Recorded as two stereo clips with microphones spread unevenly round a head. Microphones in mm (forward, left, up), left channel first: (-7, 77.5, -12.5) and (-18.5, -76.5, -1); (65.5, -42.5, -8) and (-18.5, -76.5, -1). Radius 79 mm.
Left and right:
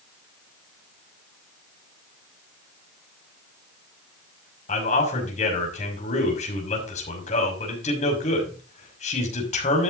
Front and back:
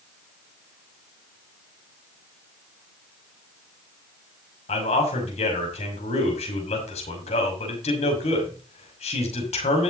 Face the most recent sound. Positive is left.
turn(degrees=35)